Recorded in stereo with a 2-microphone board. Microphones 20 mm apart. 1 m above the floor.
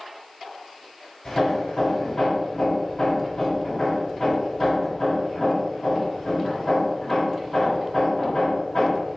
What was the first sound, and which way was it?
Hammering, 30° left (ahead or behind).